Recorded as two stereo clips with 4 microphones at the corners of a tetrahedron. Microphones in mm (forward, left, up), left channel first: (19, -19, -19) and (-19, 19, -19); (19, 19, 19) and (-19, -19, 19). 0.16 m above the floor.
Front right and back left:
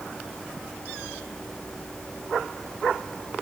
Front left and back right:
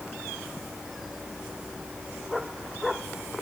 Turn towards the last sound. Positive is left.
No sound to turn to.